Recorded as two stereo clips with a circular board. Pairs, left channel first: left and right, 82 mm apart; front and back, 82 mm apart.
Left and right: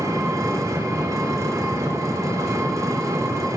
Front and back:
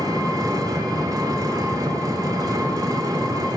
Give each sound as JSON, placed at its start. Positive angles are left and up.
{"t": 0.0, "sound": "an engine running", "azimuth_deg": -140, "distance_m": 1.1}